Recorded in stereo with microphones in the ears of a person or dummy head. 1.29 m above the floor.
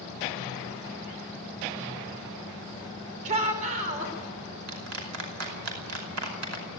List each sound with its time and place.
3.2 s a shout: 40° right (ahead or behind), 4 m
4.7 s a clap: 90° right, 5.5 m